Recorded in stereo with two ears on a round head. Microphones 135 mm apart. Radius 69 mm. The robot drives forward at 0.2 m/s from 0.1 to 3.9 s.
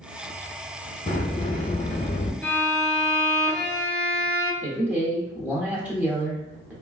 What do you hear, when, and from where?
1.1 s a sliding door: 35° left (ahead or behind), 0.5 m; by 2.3 s 40° left (ahead or behind), 0.5 m
2.4 s a violin: 10° left (ahead or behind), 1.1 m
4.6 s a man speaking: 10° right (ahead or behind), 0.9 m